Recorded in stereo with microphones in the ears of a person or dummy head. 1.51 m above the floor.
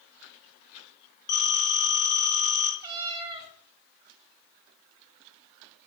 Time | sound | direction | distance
1.3 | a phone ringing | 20° left (ahead or behind) | 5 m
2.8 | a cat meowing | 25° right (ahead or behind) | 1.4 m